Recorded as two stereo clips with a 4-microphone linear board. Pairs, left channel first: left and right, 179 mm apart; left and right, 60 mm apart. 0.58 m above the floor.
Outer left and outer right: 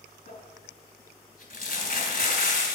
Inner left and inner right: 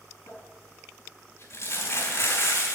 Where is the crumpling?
50° left (ahead or behind), 3.5 m.